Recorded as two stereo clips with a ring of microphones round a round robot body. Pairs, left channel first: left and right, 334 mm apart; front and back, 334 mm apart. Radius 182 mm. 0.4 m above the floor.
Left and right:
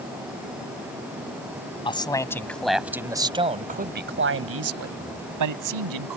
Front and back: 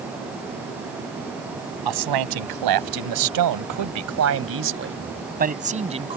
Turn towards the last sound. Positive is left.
turn(degrees=-105)